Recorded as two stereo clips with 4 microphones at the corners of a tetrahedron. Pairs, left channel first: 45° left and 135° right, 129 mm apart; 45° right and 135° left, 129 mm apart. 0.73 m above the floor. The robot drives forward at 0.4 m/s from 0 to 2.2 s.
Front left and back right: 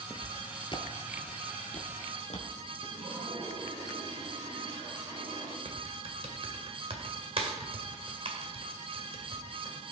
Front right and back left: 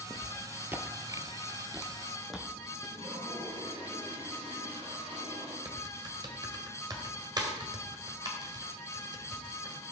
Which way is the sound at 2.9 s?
170° left.